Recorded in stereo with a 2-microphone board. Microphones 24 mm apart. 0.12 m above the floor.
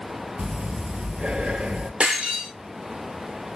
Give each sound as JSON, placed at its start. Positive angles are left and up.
{"t": 0.4, "sound": "breathing", "side_deg": -50, "distance_m": 0.5}
{"t": 2.0, "sound": "breaking glass", "side_deg": -60, "distance_m": 1.3}